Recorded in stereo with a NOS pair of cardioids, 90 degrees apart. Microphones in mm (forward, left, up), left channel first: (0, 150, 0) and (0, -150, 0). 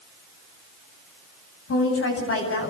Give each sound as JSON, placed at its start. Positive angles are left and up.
{"t": 1.7, "sound": "a woman speaking", "azimuth_deg": 45, "distance_m": 9.0}